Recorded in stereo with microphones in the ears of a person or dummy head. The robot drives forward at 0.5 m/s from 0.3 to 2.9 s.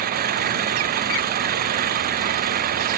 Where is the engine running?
50° right (ahead or behind).